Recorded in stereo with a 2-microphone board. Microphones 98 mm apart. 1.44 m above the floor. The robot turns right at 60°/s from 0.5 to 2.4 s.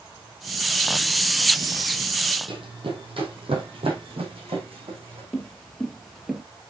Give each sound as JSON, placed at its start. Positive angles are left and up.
{"t": 2.5, "sound": "running footsteps", "side_deg": -65, "distance_m": 3.5}
{"t": 5.3, "sound": "footsteps", "side_deg": 10, "distance_m": 1.8}